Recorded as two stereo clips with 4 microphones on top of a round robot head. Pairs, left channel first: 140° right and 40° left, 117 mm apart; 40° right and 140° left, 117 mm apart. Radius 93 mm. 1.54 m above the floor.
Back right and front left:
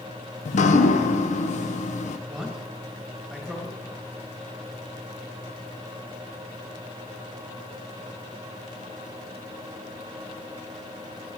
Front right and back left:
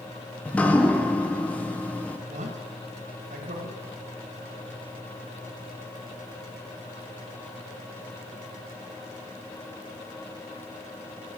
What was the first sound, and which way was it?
Dripping, 120° right.